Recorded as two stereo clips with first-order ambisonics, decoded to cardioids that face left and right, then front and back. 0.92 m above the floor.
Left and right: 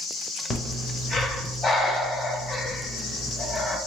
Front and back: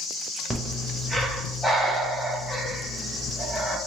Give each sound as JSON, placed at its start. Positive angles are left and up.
{"t": 0.5, "sound": "breathing", "azimuth_deg": 85, "distance_m": 0.6}